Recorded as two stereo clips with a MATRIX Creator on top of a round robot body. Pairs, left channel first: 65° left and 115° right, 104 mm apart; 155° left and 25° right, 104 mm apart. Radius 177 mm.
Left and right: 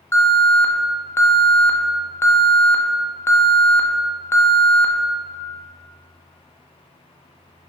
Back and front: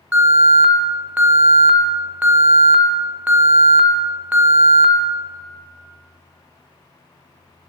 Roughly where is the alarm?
Ahead left.